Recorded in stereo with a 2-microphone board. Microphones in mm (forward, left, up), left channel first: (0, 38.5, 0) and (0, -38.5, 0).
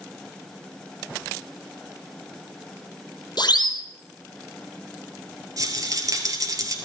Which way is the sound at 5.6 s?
45° right (ahead or behind).